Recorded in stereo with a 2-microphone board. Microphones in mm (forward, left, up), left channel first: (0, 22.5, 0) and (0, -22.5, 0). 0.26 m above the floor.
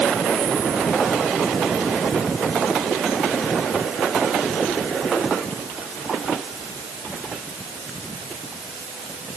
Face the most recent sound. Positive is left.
No sound to turn to.